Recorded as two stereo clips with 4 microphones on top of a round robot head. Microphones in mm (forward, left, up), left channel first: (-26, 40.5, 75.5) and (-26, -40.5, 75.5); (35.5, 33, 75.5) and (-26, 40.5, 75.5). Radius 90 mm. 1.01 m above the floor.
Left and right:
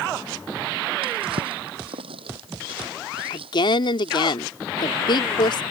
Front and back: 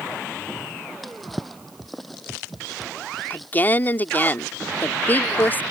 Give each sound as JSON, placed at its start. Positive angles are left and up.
{"t": 1.0, "sound": "a drawer", "azimuth_deg": -95}
{"t": 3.3, "sound": "a woman speaking", "azimuth_deg": 55}